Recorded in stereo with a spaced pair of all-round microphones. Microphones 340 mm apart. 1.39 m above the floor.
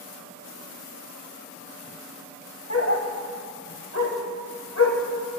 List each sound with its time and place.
2.7 s a dog barking: 45° left (ahead or behind), 1.6 m